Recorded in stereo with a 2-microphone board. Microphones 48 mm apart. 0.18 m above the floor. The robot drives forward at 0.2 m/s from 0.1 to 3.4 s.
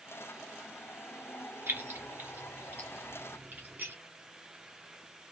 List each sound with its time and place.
1.7 s keys jangling: 45° right (ahead or behind), 1.7 m; by 4.0 s 40° right (ahead or behind), 1.9 m